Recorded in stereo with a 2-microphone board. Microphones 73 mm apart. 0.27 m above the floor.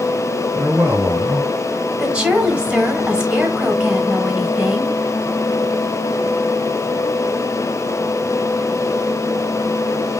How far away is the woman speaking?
About 1.3 m.